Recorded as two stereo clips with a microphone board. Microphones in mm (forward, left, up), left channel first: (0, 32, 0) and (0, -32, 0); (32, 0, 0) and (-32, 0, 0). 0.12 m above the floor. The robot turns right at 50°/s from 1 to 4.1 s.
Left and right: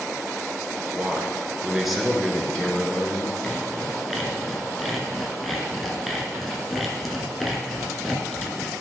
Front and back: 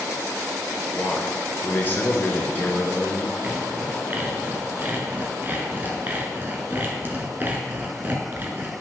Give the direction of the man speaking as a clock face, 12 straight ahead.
2 o'clock.